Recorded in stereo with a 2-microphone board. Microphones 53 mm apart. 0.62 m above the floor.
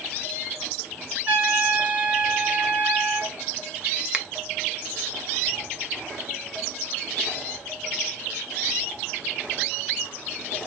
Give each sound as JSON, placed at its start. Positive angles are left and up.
{"t": 1.3, "sound": "a trumpet", "side_deg": -35, "distance_m": 1.4}
{"t": 4.1, "sound": "a finger snap", "side_deg": -20, "distance_m": 0.6}